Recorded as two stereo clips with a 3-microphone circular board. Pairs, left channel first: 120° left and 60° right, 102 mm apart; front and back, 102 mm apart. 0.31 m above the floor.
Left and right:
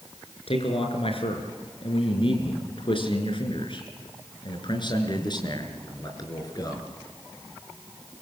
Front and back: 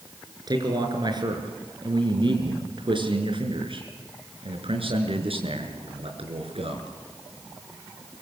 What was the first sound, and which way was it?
A man speaking, 135° left.